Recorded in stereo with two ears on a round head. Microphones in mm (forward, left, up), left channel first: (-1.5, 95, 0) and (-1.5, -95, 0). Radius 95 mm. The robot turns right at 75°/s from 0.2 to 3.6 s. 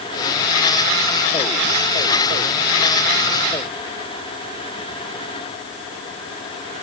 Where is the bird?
No bird in this recording.